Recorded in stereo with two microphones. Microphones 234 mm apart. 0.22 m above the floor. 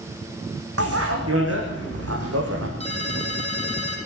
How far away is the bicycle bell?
About 9 m.